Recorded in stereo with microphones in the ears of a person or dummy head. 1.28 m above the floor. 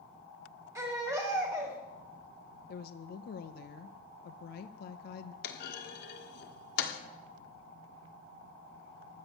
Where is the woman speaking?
60° left (ahead or behind), 0.7 m.